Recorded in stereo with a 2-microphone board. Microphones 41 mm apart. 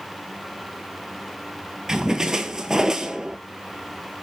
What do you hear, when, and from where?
1.9 s a splash: 15° right (ahead or behind), 0.8 m